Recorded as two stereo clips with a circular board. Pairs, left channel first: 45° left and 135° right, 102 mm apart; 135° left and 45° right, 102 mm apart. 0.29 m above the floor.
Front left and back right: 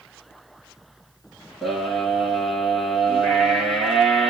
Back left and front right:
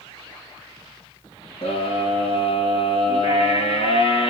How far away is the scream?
About 6 m.